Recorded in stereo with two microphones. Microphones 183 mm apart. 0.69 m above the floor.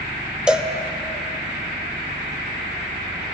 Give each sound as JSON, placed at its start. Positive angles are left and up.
{"t": 0.5, "sound": "a cowbell", "side_deg": -5, "distance_m": 0.5}